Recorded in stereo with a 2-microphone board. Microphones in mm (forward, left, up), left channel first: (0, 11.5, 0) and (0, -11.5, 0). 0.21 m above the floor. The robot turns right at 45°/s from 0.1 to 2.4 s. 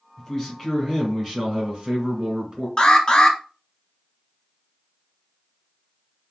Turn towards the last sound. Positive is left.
turn(degrees=40)  # may be behind; listen again after turning